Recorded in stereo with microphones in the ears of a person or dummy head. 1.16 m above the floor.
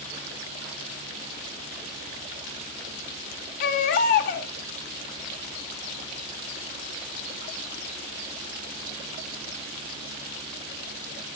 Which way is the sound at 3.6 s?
40° left (ahead or behind).